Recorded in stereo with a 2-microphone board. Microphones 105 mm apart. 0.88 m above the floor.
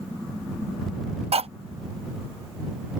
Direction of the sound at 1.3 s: 70° right (ahead or behind).